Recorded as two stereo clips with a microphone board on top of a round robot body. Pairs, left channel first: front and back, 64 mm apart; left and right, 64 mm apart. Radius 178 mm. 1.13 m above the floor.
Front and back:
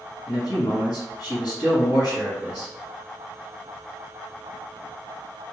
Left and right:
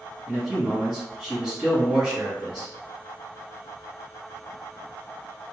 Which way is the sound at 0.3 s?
15° right.